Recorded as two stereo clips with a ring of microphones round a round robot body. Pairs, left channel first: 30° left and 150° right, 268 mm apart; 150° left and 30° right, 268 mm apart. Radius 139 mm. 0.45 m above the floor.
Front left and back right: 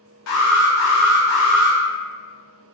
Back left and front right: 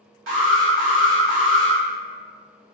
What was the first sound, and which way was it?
An alarm, 10° left.